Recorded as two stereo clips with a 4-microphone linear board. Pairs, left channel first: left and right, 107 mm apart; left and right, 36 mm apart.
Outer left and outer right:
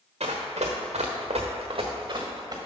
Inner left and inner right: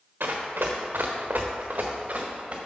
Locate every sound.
0.2 s running footsteps: 70° right (ahead or behind), 1.4 m; by 2.6 s 35° right (ahead or behind), 1.5 m